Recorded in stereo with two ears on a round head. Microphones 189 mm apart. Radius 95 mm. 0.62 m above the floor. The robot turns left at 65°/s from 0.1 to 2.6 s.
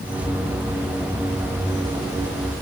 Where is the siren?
I don't hear a siren.